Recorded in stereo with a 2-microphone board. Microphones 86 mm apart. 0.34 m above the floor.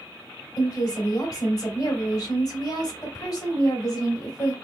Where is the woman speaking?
45° left (ahead or behind), 1.9 m.